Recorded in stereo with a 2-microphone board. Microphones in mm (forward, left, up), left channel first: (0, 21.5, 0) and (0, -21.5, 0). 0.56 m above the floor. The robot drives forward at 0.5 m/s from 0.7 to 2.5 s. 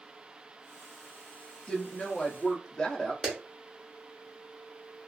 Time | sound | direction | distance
1.7 | a woman speaking | 25° left (ahead or behind) | 0.6 m
3.2 | a clap | 10° right (ahead or behind) | 0.9 m